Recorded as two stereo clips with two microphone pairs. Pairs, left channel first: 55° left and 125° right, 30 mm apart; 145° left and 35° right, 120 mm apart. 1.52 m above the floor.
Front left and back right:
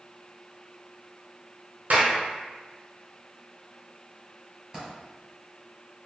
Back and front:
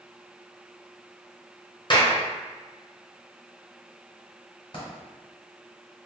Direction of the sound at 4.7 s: 170° left.